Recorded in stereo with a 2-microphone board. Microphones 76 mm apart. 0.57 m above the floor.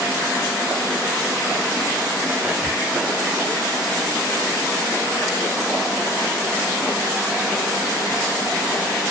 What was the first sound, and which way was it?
Whispering, 20° right (ahead or behind).